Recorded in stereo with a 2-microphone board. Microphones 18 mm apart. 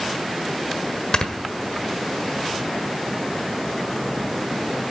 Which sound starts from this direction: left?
Snoring, at 1.1 s.